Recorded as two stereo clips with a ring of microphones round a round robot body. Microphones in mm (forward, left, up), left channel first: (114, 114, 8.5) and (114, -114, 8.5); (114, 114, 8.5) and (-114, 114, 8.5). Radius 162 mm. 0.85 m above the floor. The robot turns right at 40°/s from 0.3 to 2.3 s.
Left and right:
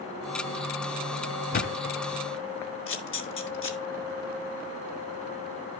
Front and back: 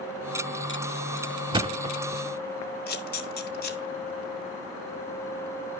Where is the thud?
120° left, 0.5 m; by 2.2 s 145° left, 0.5 m.